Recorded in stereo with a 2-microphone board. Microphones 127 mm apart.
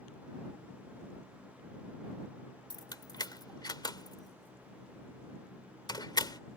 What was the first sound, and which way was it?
Keys jangling, 30° left (ahead or behind).